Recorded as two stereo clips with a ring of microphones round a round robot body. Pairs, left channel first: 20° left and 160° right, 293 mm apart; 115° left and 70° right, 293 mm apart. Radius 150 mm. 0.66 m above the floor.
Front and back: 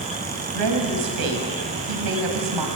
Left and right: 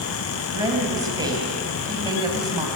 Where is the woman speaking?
145° right, 4.5 m.